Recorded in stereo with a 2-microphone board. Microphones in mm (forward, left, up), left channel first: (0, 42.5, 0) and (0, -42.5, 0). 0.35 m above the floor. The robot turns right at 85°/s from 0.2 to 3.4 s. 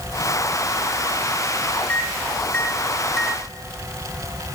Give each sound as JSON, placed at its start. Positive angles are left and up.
{"t": 1.9, "sound": "a microwave", "side_deg": 20, "distance_m": 0.8}